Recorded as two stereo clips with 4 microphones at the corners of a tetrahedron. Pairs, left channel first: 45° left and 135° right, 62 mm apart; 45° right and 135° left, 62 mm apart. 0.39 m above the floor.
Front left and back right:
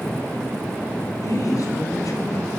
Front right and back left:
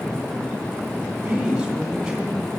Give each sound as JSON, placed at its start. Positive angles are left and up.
{"t": 1.2, "sound": "a woman speaking", "azimuth_deg": 55, "distance_m": 2.5}